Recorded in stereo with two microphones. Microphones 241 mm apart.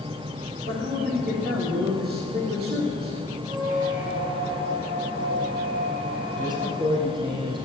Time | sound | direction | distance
0.7 | a man speaking | 45° right (ahead or behind) | 5 m
3.5 | a squeak | 35° right (ahead or behind) | 3 m
6.4 | a man speaking | 20° right (ahead or behind) | 5 m